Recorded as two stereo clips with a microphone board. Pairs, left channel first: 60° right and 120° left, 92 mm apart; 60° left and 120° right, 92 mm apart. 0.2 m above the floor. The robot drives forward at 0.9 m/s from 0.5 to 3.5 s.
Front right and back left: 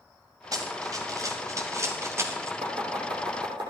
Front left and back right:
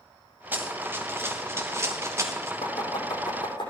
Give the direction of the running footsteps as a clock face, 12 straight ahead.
6 o'clock.